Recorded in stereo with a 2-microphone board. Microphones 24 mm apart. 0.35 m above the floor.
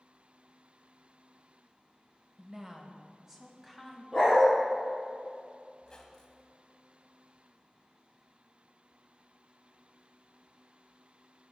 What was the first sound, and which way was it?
A woman speaking, 30° right (ahead or behind).